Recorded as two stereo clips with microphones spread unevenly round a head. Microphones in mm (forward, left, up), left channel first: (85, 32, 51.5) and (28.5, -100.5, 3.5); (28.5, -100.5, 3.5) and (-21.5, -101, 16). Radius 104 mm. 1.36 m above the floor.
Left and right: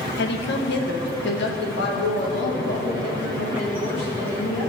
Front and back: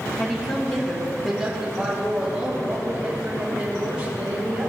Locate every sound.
0.2 s a woman speaking: 65° left, 1.4 m; by 4.7 s 110° left, 4.5 m